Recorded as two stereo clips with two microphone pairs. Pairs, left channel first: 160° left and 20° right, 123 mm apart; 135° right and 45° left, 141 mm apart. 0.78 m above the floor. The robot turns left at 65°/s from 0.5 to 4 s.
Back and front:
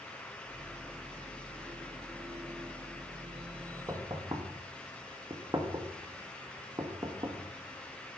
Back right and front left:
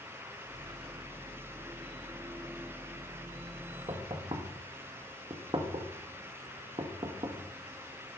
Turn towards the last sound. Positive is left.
turn(degrees=15)